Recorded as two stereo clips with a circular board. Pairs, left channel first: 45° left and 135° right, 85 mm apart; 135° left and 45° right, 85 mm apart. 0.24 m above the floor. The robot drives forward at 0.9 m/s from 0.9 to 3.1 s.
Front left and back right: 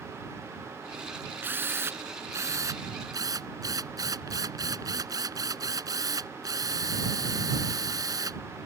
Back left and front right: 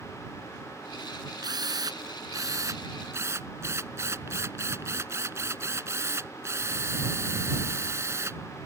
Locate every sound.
1.4 s a drill: 75° right; by 8.7 s 100° right